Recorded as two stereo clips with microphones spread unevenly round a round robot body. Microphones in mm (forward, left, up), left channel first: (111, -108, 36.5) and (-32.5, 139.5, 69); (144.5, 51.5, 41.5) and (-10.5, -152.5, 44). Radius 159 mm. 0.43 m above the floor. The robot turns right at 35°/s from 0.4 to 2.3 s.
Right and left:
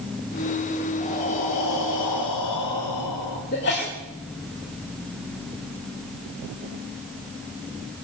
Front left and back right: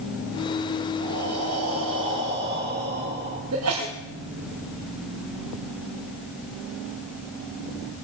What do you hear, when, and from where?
1.0 s breathing: 125° right, 5 m; by 3.4 s 80° right, 5 m
3.5 s a sneeze: 110° right, 2.5 m